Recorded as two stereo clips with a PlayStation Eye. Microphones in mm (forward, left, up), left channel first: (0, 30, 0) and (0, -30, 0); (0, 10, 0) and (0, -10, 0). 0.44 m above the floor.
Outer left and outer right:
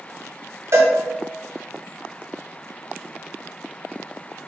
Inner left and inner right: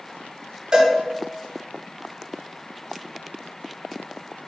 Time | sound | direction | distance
0.7 | a cowbell | 50° right (ahead or behind) | 0.6 m